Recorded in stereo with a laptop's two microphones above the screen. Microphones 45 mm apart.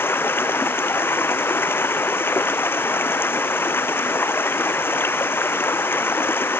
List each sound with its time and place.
0.0 s running water: 60° left (ahead or behind)